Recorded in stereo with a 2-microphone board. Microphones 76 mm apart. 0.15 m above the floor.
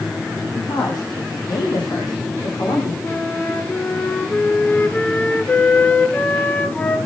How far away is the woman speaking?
About 9 m.